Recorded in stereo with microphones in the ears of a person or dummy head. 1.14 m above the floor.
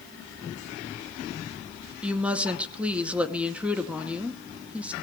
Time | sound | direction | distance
2.0 | a woman speaking | 5° right (ahead or behind) | 2 m